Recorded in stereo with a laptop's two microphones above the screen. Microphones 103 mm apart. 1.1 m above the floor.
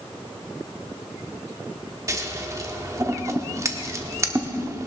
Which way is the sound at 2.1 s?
30° right (ahead or behind).